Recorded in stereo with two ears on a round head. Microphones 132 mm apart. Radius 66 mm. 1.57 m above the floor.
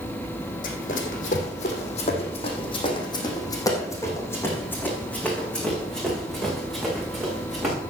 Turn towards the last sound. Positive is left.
turn(degrees=-5)  # may be behind; listen again after turning